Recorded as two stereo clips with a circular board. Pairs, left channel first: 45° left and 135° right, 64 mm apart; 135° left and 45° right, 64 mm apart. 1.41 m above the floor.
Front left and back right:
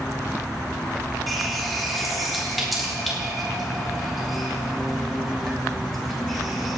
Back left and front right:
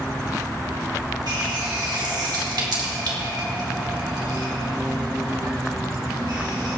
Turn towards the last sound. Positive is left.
turn(degrees=-45)